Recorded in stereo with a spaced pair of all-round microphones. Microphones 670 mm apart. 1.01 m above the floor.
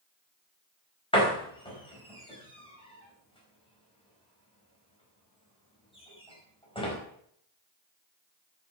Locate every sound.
1.1 s a door slam: 10° left (ahead or behind), 4.5 m